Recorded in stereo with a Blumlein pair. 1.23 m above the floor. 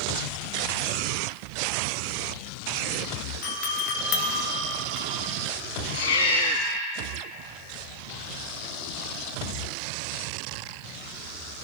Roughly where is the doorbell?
Ahead left.